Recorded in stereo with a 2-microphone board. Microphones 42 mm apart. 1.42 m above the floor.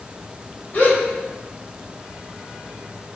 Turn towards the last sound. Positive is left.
turn(degrees=35)  # may be behind; listen again after turning